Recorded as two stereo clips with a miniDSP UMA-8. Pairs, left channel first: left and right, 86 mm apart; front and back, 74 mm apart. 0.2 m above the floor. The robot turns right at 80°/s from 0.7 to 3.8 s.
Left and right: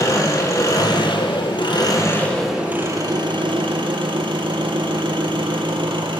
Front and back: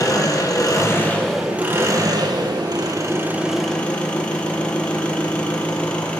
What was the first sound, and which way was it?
An engine running, 40° left.